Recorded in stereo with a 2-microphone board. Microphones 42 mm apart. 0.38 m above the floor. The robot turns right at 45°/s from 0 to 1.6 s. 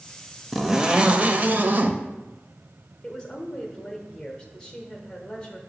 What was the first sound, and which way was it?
A zipper, 175° right.